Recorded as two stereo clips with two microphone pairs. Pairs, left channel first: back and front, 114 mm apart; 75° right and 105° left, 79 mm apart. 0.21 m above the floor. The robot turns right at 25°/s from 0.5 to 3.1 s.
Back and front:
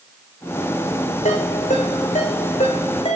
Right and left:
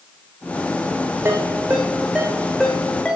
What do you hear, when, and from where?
1.2 s a ringtone: 170° left, 6 m; by 3.2 s 145° right, 6 m